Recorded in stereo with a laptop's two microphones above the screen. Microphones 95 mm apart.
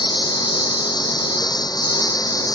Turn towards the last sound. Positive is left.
turn(degrees=40)  # may be behind; listen again after turning